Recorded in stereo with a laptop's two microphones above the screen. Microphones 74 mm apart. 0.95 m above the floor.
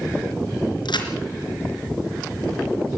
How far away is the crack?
About 3.5 m.